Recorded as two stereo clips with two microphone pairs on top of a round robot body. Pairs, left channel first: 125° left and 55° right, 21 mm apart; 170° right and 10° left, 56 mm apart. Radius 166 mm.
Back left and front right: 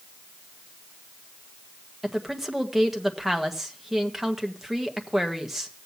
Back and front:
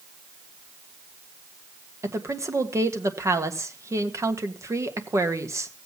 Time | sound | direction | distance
2.0 | a woman speaking | 25° left | 1.7 m